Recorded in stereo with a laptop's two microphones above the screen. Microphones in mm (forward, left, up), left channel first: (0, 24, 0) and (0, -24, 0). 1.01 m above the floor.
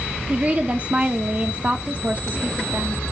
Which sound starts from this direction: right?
A woman speaking, at 0.3 s.